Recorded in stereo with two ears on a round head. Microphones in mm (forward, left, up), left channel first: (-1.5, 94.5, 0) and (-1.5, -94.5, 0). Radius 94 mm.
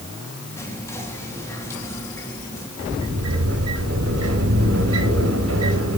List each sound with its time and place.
0.6 s whispering: 15° left (ahead or behind), 3.5 m
2.8 s a sliding door: 85° right, 4 m